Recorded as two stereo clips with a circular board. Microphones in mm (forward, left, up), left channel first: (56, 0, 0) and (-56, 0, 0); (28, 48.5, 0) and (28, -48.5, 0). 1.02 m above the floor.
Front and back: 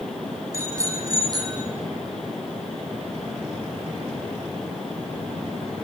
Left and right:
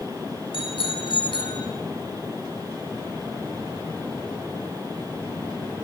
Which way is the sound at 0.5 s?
115° left.